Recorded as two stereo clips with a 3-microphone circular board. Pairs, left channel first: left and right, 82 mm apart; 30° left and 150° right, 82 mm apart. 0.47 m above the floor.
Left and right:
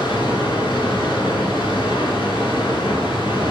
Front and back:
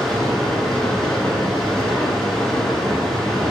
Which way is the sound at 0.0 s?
115° left.